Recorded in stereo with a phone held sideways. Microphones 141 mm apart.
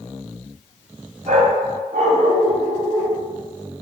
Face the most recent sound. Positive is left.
turn(degrees=-50)  # may be behind; listen again after turning